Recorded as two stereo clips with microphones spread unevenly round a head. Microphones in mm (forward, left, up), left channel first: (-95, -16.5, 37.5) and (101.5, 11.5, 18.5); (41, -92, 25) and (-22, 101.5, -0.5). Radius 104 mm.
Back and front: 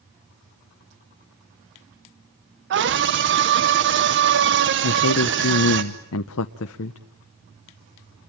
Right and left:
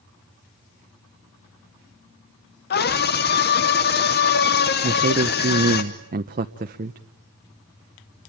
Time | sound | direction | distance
2.7 | a scream | 25° right | 1.0 m
4.8 | a man speaking | 165° left | 0.8 m